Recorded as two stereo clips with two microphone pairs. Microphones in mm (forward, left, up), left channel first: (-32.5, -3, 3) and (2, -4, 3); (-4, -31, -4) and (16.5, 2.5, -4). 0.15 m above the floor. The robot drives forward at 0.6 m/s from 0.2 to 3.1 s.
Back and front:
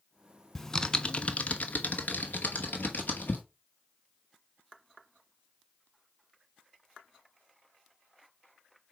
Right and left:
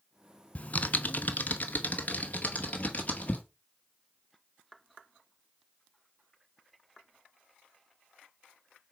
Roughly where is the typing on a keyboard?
Right.